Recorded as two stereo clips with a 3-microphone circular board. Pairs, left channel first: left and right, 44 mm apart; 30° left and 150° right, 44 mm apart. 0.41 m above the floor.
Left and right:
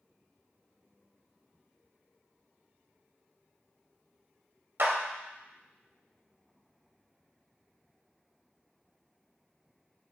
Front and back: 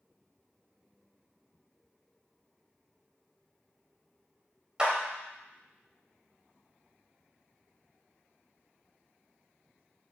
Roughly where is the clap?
Right.